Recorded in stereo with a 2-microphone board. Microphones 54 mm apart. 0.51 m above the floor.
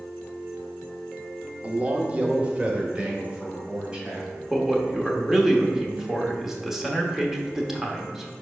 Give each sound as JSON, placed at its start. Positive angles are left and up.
{"t": 1.6, "sound": "a man speaking", "side_deg": -30, "distance_m": 0.7}
{"t": 4.5, "sound": "a man speaking", "side_deg": -10, "distance_m": 1.0}